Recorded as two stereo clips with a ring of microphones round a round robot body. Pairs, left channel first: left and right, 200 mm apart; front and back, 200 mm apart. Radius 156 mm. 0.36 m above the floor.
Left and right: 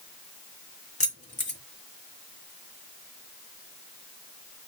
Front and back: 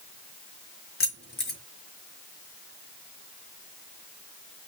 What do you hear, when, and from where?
1.0 s keys jangling: 35° left, 3.5 m